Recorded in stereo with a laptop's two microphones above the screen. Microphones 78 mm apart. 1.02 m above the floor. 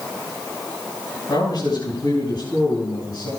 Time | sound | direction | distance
1.3 | a man speaking | 65° left (ahead or behind) | 7 m